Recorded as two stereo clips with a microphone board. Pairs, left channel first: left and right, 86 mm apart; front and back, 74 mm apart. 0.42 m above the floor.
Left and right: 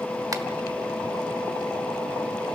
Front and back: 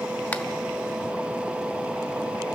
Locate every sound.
0.3 s a finger snap: 55° right, 1.1 m